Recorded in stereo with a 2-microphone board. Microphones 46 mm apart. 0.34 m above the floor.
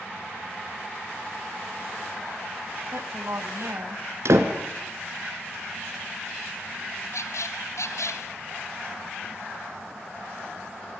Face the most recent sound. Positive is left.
turn(degrees=85)